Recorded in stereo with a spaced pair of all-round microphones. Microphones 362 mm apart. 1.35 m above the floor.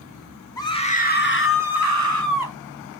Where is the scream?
10° left (ahead or behind), 2.5 m; by 2.6 s 60° left (ahead or behind), 3 m.